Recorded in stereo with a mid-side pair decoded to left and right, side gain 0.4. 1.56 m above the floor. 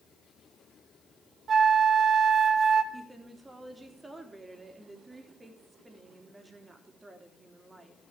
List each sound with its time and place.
1.5 s a flute: 55° right, 1.1 m
2.9 s a woman speaking: 25° right, 3 m